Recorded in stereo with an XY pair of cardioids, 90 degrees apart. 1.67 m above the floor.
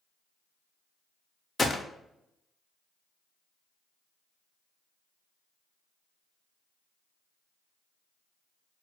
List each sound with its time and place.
1.6 s a gunshot: 35° left, 0.6 m